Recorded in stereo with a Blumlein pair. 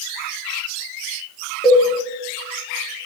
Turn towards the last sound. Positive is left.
turn(degrees=20)